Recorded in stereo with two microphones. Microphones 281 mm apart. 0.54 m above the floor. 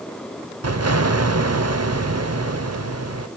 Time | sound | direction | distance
0.6 | an explosion | 60° right (ahead or behind) | 0.7 m